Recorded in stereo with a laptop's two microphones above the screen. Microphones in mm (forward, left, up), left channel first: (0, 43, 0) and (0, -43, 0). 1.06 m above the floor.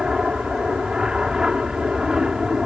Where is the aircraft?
10° right (ahead or behind).